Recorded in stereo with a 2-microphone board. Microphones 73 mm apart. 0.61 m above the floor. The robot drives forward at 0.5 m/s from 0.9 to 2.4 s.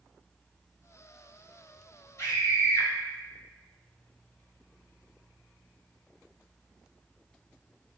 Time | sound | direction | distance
2.2 | a scream | 45° left (ahead or behind) | 1.8 m